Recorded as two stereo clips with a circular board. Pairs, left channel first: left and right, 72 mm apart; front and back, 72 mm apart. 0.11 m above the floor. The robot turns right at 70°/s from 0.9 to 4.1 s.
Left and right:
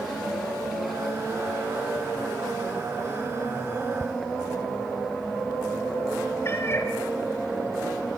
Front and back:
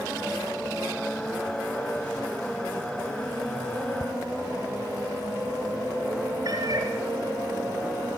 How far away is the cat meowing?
About 1.7 m.